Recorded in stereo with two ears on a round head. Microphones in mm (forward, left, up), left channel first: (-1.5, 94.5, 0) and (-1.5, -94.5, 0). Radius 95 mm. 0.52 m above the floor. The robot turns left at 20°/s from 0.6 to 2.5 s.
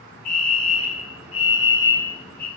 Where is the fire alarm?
45° left, 5.5 m; by 2.5 s 10° left, 5.5 m.